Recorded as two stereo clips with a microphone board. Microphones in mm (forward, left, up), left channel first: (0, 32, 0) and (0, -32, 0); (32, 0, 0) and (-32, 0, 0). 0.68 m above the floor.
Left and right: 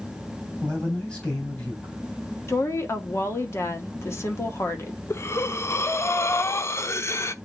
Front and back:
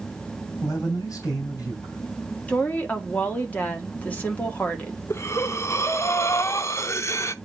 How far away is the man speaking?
About 3.5 m.